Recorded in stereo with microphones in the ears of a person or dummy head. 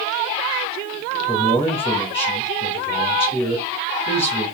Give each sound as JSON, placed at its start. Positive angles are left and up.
{"t": 1.3, "sound": "a man speaking", "side_deg": 30, "distance_m": 2.0}